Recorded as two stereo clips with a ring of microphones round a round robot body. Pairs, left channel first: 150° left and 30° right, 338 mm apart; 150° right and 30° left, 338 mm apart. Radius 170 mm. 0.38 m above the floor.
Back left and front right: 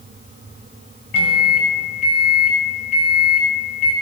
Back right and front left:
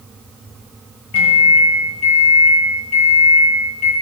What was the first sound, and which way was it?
A microwave, 175° left.